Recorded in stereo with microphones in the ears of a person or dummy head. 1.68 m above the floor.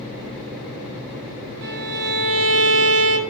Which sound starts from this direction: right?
A violin, at 1.6 s.